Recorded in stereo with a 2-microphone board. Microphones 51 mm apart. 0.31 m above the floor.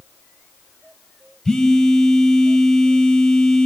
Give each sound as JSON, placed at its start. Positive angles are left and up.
{"t": 1.4, "sound": "a phone buzzing", "side_deg": 10, "distance_m": 2.0}